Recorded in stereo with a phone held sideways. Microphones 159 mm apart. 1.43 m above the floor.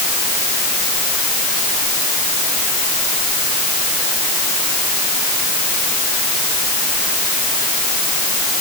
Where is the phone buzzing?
I don't hear a phone buzzing.